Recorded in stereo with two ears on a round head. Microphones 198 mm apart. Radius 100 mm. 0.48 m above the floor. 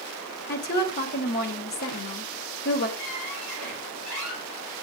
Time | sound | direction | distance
0.5 | a woman speaking | 40° left (ahead or behind) | 2 m
3.0 | a squeak | 80° left | 6 m